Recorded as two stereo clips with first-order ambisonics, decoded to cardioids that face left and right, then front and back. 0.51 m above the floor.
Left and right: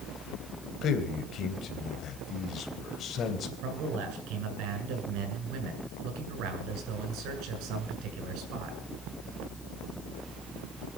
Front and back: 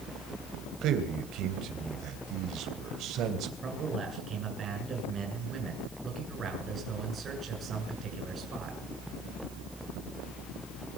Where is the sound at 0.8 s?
140° left, 3 m.